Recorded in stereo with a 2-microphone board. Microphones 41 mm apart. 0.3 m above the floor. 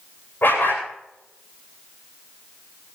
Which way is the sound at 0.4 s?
55° left (ahead or behind).